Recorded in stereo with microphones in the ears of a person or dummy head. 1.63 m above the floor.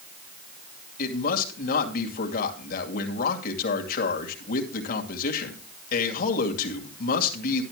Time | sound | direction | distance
1.0 | a man speaking | 50° left (ahead or behind) | 2.5 m